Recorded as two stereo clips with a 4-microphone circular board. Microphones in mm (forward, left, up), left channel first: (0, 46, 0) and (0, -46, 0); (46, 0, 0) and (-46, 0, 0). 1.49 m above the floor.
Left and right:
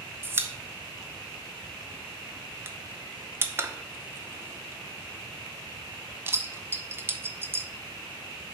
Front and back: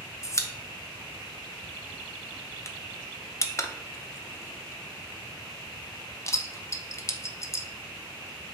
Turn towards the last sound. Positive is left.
turn(degrees=-40)